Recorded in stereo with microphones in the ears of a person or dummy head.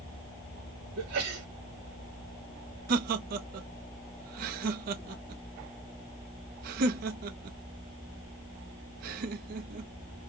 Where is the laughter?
55° right (ahead or behind), 0.7 m.